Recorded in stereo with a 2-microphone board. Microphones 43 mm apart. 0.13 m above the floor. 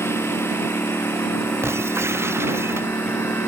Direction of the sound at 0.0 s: 85° left.